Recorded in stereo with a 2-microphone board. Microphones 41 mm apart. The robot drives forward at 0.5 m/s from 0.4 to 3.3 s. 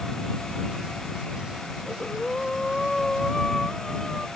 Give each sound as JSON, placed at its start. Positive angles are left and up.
{"t": 1.9, "sound": "breathing", "side_deg": 10}